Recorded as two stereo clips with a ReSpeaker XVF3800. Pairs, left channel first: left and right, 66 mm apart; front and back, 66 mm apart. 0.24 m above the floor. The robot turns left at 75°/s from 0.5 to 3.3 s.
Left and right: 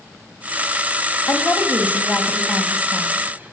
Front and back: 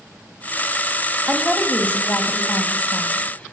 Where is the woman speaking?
100° left, 1.2 m; by 3.5 s 50° right, 1.2 m.